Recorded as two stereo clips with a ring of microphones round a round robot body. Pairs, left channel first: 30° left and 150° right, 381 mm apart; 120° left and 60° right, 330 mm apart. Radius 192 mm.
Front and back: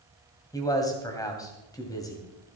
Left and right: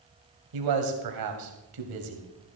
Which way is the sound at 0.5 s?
50° right.